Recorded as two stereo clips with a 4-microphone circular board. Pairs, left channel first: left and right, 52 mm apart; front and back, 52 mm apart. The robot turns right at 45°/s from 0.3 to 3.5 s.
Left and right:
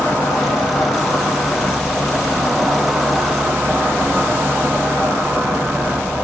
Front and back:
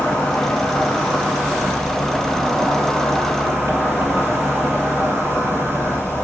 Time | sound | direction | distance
0.0 | an insect | 75° left | 2.5 m